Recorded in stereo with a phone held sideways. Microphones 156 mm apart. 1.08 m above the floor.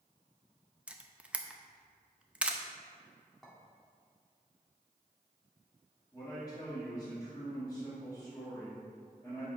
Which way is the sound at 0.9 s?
5° right (ahead or behind).